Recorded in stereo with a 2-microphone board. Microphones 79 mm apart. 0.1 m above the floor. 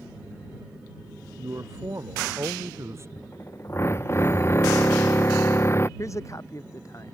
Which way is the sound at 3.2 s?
35° left (ahead or behind).